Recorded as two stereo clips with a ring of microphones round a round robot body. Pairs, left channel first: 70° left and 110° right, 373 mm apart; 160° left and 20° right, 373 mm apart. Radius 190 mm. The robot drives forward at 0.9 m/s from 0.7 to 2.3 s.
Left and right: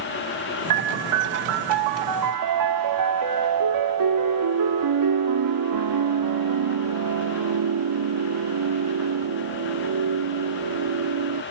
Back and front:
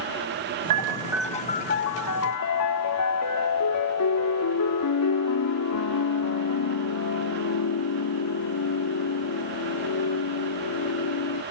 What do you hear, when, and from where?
0.7 s a piano: 70° right; by 11.4 s 155° right